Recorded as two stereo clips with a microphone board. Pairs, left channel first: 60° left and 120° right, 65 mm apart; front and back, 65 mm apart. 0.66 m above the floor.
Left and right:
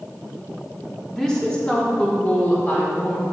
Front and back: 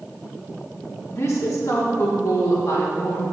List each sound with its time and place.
1.1 s a woman speaking: 20° right, 1.6 m; by 3.2 s 5° left, 2.5 m